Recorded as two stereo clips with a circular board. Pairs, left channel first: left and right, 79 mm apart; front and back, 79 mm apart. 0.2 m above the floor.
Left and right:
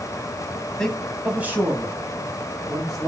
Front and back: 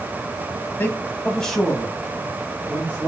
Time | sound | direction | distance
0.8 | a man speaking | 20° left | 1.1 m